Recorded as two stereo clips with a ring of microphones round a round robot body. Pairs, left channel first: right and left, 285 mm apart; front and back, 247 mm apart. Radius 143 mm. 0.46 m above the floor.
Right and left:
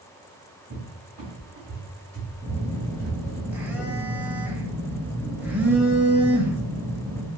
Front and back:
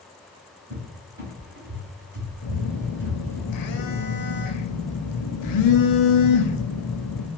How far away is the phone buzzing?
About 0.5 m.